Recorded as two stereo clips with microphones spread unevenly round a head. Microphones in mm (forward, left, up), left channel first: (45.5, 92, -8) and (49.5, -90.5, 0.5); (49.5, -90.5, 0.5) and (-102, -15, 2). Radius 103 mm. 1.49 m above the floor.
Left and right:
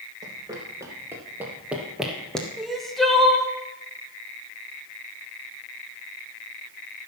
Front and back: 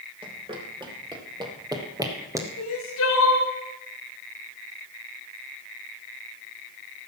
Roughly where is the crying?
Ahead.